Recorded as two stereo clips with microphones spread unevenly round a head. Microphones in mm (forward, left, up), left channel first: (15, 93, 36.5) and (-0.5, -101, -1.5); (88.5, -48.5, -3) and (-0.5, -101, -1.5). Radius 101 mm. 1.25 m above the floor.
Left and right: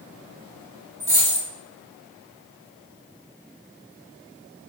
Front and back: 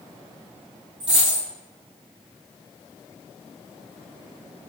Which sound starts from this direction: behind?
A dropped coin, at 1.0 s.